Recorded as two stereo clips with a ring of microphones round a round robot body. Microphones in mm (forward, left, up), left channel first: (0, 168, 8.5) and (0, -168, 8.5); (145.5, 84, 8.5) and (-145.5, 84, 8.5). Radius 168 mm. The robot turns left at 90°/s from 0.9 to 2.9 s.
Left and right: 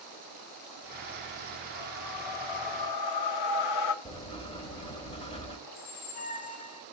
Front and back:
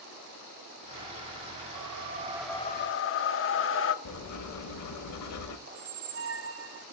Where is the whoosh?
155° left, 0.6 m; by 4.0 s 50° left, 0.6 m.